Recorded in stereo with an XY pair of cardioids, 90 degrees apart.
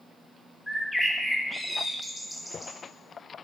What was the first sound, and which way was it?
A bird, 10° left.